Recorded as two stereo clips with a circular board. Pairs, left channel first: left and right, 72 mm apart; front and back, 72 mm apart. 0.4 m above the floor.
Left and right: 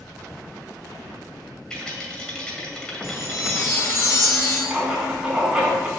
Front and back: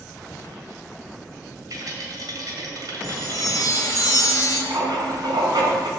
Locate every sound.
1.7 s a rattle: 165° left, 2 m
3.0 s a chime: 40° left, 2 m
4.7 s writing: 165° right, 4 m